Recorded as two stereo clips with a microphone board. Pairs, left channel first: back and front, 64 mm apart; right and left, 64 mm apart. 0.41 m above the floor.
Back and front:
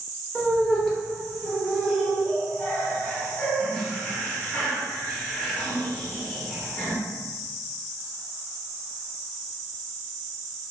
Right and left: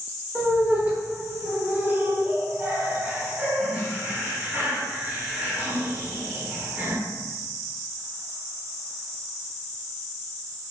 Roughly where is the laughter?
Behind left.